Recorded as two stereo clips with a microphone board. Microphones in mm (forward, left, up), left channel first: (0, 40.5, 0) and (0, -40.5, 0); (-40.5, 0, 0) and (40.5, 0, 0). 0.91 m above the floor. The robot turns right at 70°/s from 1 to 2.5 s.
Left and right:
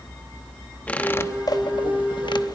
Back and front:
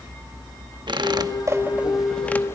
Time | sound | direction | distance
0.9 | a squeak | 20° left | 1.0 m